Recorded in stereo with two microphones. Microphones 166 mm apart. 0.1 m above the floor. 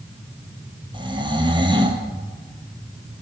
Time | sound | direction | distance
0.9 | snoring | 25° right (ahead or behind) | 2 m